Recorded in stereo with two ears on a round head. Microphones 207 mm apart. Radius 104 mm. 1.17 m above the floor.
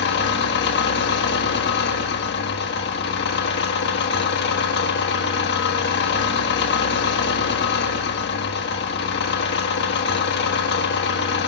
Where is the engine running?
45° left (ahead or behind), 1.4 m.